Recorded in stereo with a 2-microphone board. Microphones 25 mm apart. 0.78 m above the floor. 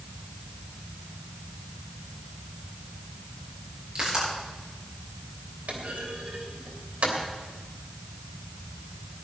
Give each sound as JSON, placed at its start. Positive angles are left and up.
{"t": 4.0, "sound": "a pop", "side_deg": -35, "distance_m": 7.0}
{"t": 5.7, "sound": "a clunk", "side_deg": -80, "distance_m": 3.0}